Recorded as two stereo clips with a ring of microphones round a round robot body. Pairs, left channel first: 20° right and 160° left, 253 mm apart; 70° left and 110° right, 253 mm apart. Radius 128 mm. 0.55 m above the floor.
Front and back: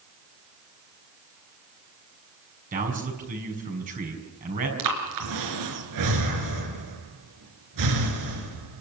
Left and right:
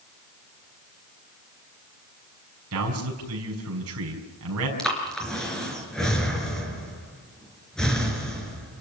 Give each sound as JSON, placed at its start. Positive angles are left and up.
{"t": 2.7, "sound": "a man speaking", "azimuth_deg": -145, "distance_m": 6.0}
{"t": 4.8, "sound": "breathing", "azimuth_deg": 155, "distance_m": 4.0}